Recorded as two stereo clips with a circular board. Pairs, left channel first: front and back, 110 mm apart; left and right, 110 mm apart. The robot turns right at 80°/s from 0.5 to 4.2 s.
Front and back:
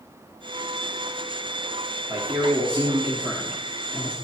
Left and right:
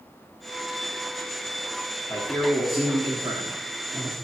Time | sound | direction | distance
2.1 | a man speaking | 130° left | 1.1 m